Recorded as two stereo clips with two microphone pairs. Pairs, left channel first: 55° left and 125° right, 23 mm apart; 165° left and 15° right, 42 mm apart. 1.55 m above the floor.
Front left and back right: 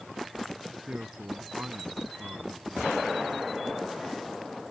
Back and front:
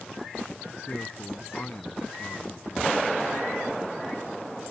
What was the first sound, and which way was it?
A man speaking, 145° right.